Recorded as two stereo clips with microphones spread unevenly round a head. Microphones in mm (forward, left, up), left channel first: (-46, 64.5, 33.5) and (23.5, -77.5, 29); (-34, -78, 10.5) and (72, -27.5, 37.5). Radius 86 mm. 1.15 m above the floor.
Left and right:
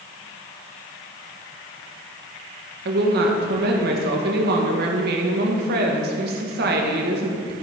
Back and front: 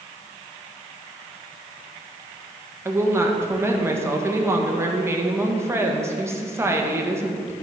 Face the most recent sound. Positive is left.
turn(degrees=-45)